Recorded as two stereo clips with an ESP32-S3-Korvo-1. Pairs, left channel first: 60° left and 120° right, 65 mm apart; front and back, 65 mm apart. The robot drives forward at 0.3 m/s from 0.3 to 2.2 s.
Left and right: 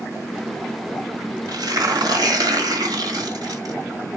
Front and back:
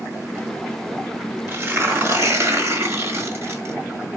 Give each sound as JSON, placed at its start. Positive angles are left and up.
{"t": 1.5, "sound": "tearing paper", "azimuth_deg": -125, "distance_m": 1.5}